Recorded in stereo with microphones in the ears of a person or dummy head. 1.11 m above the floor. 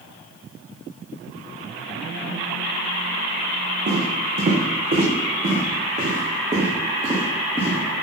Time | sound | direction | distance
3.9 | footsteps | 45° right (ahead or behind) | 3 m